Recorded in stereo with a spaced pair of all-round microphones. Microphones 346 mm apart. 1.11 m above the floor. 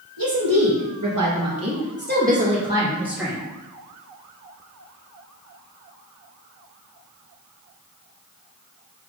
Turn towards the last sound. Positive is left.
turn(degrees=0)  # may be behind; listen again after turning